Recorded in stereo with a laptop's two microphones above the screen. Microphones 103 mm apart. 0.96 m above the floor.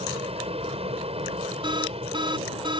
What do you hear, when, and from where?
0.0 s an aircraft: 70° right (ahead or behind)
1.6 s an alarm: 50° right (ahead or behind)